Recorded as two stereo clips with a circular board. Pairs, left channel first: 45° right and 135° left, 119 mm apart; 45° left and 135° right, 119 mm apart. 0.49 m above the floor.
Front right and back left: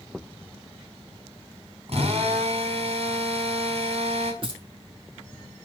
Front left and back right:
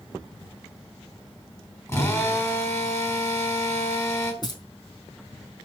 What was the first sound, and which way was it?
A drill, 110° left.